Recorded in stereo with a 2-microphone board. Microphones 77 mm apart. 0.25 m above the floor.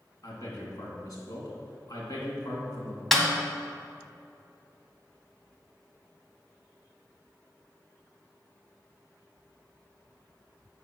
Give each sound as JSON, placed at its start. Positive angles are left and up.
{"t": 0.2, "sound": "a man speaking", "side_deg": 55, "distance_m": 2.5}
{"t": 3.1, "sound": "a snare drum", "side_deg": 0, "distance_m": 1.2}